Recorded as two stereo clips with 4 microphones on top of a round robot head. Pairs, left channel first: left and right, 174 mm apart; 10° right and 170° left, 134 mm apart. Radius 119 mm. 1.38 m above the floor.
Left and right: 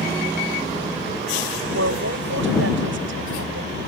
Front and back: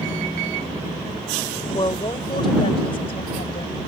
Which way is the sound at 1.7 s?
80° right.